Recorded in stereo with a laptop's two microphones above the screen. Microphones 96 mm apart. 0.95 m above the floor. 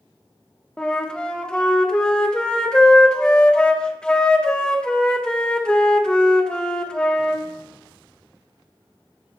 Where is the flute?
10° left (ahead or behind), 0.6 m.